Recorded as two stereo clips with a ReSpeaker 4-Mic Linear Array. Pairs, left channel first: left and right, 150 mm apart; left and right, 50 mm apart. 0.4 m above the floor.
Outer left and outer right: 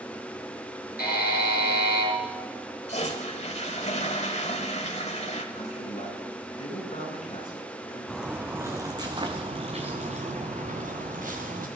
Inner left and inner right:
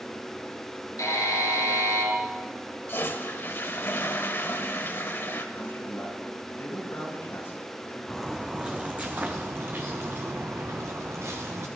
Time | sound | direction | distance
1.0 | a buzzer | 80° left | 4.5 m
2.9 | a toilet flushing | 45° left (ahead or behind) | 1.3 m
5.5 | a man speaking | 45° left (ahead or behind) | 5 m
8.1 | footsteps | centre (ahead or behind) | 1.6 m